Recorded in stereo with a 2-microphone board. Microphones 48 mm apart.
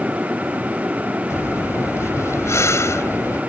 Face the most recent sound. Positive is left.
turn(degrees=80)